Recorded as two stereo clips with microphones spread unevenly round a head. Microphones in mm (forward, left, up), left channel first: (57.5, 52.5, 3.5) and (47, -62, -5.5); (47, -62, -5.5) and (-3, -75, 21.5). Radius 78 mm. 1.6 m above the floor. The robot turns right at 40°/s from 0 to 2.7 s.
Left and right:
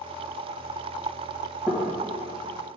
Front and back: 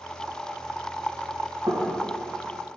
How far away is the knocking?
About 1.4 m.